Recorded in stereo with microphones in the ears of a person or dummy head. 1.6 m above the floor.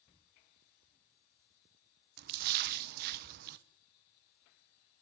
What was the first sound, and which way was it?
A splash, 50° right (ahead or behind).